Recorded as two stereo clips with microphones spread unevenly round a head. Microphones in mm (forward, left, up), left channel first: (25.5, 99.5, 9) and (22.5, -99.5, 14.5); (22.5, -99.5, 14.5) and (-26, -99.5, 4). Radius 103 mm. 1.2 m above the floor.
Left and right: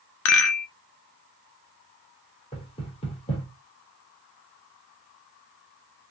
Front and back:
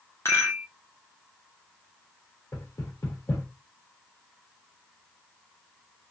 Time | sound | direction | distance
0.2 | a rattle | 75° left | 0.6 m
2.5 | knocking | 25° left | 1.3 m